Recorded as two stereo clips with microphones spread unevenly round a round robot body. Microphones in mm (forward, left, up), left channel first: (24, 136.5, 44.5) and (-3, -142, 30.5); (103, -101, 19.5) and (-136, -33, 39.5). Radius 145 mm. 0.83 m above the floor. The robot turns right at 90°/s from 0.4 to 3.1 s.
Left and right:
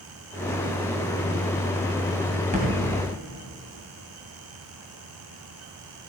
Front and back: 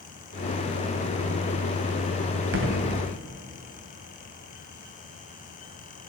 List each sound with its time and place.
2.5 s a thud: 165° right, 2 m; by 2.8 s 145° right, 2 m